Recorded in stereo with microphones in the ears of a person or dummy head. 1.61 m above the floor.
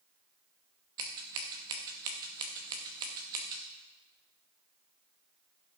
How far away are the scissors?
About 1.0 m.